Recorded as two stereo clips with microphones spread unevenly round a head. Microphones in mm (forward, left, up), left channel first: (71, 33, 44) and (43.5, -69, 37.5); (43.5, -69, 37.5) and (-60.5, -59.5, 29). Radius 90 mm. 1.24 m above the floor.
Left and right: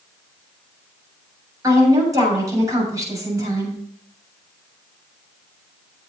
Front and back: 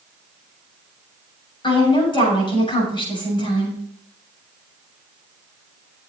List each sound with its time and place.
1.6 s a woman speaking: 45° right, 7.5 m